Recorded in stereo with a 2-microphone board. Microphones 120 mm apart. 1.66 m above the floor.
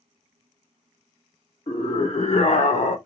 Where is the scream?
55° left (ahead or behind), 1.4 m; by 3.0 s 80° left, 0.7 m.